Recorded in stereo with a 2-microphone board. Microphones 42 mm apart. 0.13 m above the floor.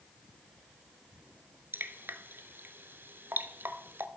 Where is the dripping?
60° right (ahead or behind), 0.7 m.